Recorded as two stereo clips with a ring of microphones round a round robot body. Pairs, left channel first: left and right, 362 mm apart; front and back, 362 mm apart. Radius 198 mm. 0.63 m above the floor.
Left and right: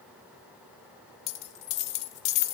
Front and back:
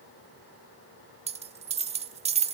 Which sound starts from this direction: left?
A dropped coin, at 1.3 s.